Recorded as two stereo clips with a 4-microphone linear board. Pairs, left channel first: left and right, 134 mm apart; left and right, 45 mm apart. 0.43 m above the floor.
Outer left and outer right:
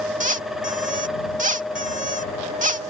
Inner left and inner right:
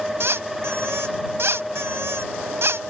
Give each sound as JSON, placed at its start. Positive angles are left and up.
{"t": 0.2, "sound": "a squeak", "side_deg": -70}